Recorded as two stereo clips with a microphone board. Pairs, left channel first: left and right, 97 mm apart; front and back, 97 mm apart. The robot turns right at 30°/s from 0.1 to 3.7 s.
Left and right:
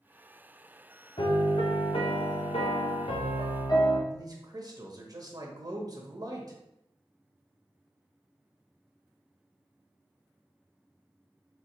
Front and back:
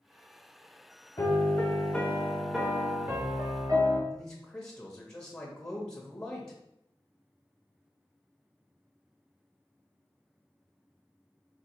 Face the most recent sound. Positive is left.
turn(degrees=-80)